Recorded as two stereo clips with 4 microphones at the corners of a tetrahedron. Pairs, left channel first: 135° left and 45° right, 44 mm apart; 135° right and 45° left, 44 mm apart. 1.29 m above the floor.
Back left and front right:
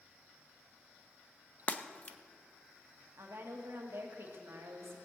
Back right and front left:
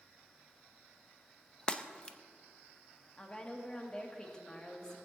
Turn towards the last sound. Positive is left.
turn(degrees=-65)